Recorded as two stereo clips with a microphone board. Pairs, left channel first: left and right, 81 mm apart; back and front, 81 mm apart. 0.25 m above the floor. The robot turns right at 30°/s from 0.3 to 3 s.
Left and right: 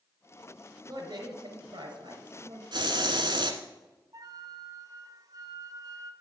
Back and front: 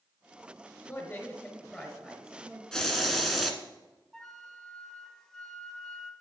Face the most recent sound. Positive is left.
turn(degrees=-100)